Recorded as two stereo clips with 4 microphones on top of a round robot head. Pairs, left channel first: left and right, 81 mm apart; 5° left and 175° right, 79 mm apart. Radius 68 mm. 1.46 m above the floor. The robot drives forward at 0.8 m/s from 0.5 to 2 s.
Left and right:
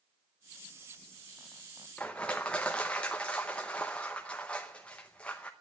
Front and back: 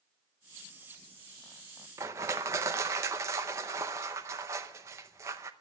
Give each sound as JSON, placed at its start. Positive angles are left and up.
{"t": 2.0, "sound": "crushing", "azimuth_deg": 165, "distance_m": 0.6}